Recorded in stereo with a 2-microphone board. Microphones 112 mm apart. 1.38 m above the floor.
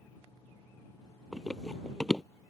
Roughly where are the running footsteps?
Centre.